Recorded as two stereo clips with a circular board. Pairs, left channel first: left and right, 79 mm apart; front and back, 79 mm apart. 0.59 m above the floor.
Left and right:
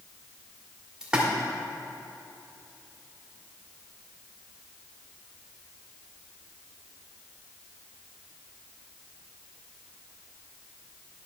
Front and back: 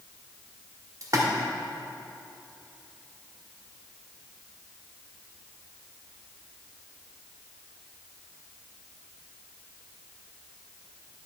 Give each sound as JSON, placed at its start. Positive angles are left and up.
{"t": 1.0, "sound": "a splash", "azimuth_deg": -165, "distance_m": 1.8}